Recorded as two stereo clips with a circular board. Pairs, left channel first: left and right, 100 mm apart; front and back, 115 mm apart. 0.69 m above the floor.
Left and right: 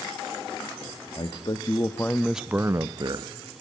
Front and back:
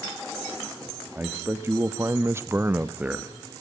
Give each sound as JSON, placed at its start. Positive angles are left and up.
{"t": 1.1, "sound": "a man speaking", "azimuth_deg": 110, "distance_m": 1.0}